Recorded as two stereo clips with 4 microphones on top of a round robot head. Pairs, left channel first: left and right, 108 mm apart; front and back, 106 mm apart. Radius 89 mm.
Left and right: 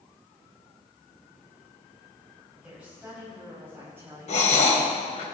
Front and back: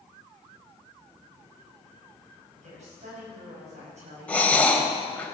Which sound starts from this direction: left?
Breathing, at 4.3 s.